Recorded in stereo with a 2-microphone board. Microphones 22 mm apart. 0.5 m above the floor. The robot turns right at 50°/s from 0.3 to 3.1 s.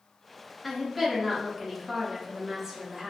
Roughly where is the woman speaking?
Centre.